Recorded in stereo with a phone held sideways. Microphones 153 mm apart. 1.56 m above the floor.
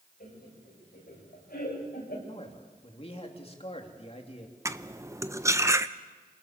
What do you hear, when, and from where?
0.2 s laughter: 90° left, 9.5 m; by 2.2 s 80° left, 8.5 m
2.3 s a man speaking: 40° left (ahead or behind), 2.5 m
4.7 s cutlery clinking: 20° right (ahead or behind), 0.6 m